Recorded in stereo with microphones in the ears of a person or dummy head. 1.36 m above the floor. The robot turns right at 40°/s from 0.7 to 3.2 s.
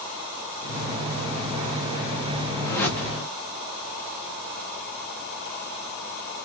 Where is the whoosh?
15° left (ahead or behind), 0.6 m; by 3.3 s 5° right (ahead or behind), 0.6 m.